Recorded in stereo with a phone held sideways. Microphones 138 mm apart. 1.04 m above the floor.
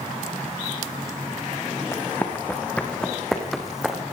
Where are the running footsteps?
15° left (ahead or behind), 3.5 m; by 4.0 s 5° right (ahead or behind), 3 m.